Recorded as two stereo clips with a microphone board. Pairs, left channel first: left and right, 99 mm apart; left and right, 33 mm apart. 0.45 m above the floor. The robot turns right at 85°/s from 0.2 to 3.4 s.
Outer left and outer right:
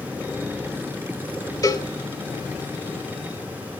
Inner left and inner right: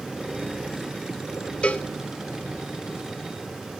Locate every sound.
1.6 s a cowbell: 35° left (ahead or behind), 0.9 m; by 1.9 s 45° left (ahead or behind), 0.9 m